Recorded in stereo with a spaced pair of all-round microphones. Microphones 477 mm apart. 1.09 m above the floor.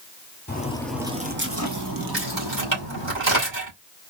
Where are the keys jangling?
60° right (ahead or behind), 3 m.